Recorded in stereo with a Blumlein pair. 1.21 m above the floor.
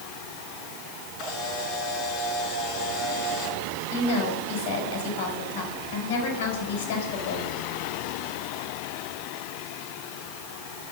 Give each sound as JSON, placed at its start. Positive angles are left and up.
{"t": 1.2, "sound": "a camera shutter", "azimuth_deg": 40, "distance_m": 6.5}
{"t": 3.9, "sound": "a woman speaking", "azimuth_deg": 55, "distance_m": 6.0}